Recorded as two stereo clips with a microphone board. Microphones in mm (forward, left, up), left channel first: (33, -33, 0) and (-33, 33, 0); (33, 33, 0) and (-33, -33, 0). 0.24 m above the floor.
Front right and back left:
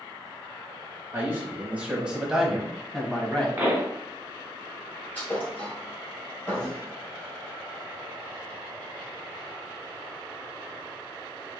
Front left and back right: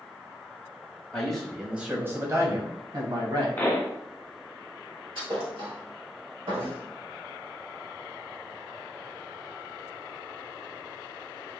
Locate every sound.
1.1 s a man speaking: 110° left, 1.2 m; by 3.5 s 125° right, 1.8 m
3.6 s a pop: 90° left, 1.4 m
5.2 s a thud: 115° right, 2 m